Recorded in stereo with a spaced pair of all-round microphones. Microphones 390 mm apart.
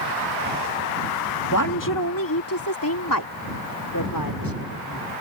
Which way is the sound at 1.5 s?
50° left (ahead or behind).